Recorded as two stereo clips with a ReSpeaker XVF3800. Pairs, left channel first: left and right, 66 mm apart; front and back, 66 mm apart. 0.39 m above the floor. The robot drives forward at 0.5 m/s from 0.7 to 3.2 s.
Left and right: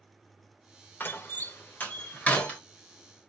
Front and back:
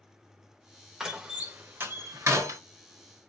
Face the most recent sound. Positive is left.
turn(degrees=160)